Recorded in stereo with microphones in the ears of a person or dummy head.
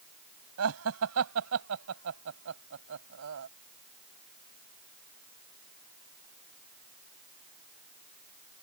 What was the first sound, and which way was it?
Laughter, 80° right.